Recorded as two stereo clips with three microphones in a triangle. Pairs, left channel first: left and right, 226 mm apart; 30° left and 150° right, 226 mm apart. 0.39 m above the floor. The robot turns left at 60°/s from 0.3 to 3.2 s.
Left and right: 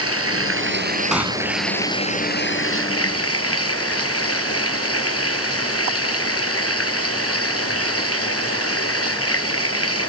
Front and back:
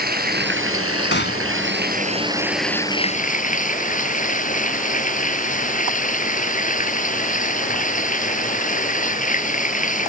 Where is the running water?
100° right; by 10.1 s 85° left.